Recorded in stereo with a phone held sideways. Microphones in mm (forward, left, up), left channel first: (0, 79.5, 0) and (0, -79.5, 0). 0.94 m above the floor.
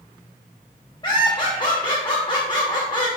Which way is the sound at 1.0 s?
30° left (ahead or behind).